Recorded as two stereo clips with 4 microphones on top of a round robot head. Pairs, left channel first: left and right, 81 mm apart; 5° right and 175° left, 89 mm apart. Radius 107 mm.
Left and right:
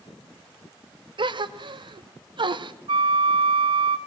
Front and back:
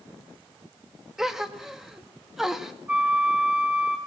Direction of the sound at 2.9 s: 105° right.